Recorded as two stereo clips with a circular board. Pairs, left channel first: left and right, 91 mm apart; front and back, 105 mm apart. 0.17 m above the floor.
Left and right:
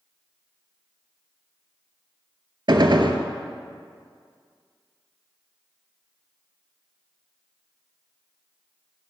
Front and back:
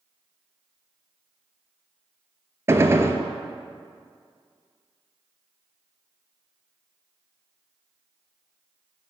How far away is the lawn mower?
No lawn mower in this recording.